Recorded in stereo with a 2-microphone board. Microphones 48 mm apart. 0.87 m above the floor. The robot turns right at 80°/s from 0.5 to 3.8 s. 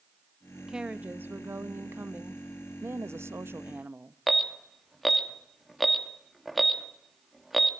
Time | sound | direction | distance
0.7 | a woman speaking | 170° right | 1.3 m
2.8 | a woman speaking | 120° right | 0.9 m
4.3 | an alarm | centre (ahead or behind) | 1.6 m